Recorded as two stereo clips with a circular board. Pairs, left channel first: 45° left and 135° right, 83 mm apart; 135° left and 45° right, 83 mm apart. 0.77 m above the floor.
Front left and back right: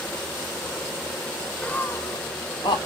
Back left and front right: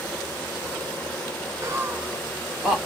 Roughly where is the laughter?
Ahead right.